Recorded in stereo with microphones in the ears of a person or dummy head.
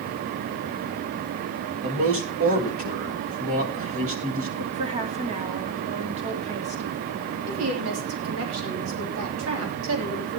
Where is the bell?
I don't hear a bell.